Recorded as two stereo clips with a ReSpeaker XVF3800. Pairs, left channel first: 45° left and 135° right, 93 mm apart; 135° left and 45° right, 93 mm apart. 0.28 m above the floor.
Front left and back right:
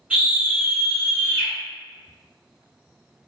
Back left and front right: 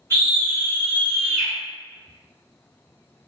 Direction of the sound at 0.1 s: 160° left.